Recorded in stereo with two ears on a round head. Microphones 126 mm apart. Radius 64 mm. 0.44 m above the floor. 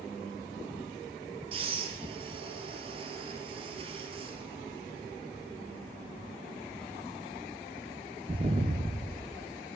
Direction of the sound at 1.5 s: 40° right (ahead or behind).